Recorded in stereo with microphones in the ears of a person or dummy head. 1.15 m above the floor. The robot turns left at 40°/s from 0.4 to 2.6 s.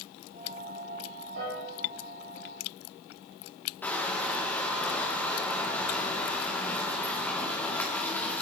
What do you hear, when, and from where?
1.4 s a piano: 80° right, 6 m
3.8 s crushing: 5° left (ahead or behind), 2.0 m